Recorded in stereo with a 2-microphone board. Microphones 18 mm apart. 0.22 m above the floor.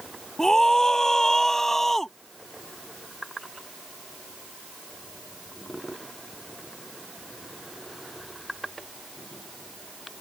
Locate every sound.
0.4 s a scream: 30° left (ahead or behind); by 2.1 s 10° left (ahead or behind)